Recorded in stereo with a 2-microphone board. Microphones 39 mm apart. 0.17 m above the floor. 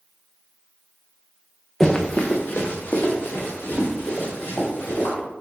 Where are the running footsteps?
10° left (ahead or behind), 0.7 m; by 5.1 s 80° left, 4 m.